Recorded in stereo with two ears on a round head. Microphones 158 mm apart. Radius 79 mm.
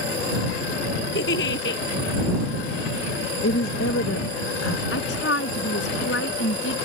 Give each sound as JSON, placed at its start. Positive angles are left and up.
{"t": 1.1, "sound": "a giggle", "side_deg": 65}
{"t": 3.4, "sound": "a woman speaking", "side_deg": 85}
{"t": 4.9, "sound": "a woman speaking", "side_deg": 75}